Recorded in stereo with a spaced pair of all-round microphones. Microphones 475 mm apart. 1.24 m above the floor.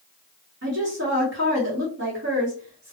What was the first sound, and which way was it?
A woman speaking, 35° right (ahead or behind).